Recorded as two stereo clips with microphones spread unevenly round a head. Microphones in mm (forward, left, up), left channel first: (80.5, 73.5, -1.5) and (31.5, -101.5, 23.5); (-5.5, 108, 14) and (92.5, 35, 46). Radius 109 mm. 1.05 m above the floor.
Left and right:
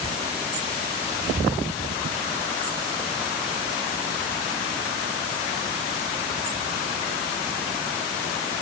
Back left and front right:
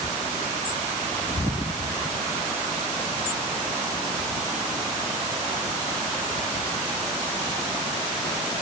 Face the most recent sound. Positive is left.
No sound to turn to.